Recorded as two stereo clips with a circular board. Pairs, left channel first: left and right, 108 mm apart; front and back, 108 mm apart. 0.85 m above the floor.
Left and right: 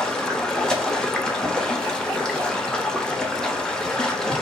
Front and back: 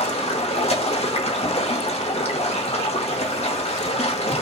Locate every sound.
0.0 s running water: 5° left, 0.9 m